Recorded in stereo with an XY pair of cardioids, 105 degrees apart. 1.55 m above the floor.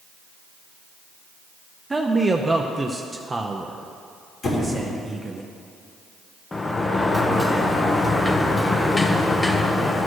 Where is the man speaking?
20° right, 0.5 m.